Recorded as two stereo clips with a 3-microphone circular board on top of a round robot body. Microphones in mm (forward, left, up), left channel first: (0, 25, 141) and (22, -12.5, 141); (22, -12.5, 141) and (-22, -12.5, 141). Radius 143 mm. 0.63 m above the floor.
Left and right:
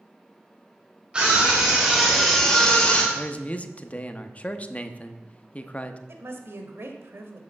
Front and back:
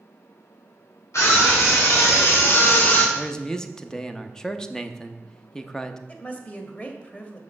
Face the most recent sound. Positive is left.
turn(degrees=-50)